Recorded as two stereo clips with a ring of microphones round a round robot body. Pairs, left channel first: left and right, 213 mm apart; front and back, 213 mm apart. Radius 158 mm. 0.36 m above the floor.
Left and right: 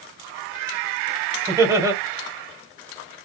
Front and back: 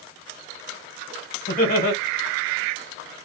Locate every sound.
1.5 s laughter: 20° right, 1.7 m